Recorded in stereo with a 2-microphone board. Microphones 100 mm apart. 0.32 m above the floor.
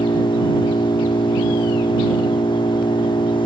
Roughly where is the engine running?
Left.